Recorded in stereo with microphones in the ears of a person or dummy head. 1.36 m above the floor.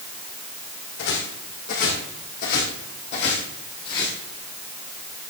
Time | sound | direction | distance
1.0 | footsteps | 60° left (ahead or behind) | 4 m